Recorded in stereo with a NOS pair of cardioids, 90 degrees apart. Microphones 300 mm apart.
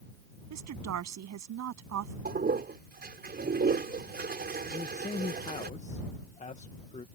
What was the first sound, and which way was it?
A woman speaking, 65° right.